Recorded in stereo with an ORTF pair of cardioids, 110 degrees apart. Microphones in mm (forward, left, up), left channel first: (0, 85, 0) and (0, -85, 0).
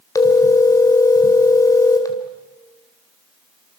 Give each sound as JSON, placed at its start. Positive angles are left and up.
{"t": 0.1, "sound": "a phone ringing", "azimuth_deg": 20, "distance_m": 3.5}